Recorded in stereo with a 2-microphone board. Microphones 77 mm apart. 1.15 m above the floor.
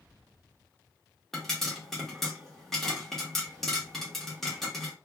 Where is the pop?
5° left (ahead or behind), 1.0 m.